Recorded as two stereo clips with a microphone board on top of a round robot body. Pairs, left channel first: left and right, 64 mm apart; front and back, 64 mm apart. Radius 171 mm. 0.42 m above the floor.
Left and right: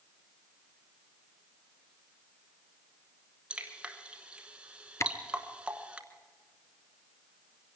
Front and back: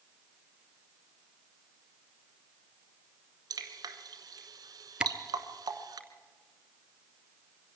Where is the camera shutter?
110° left, 1.4 m.